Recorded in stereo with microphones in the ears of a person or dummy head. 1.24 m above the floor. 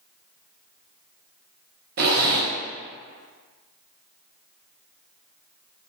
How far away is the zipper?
About 0.6 m.